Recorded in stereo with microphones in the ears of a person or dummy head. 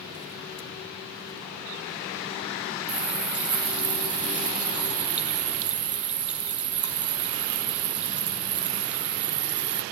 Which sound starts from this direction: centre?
A running tap, at 2.9 s.